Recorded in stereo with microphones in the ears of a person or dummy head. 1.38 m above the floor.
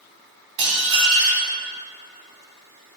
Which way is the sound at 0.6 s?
30° right (ahead or behind).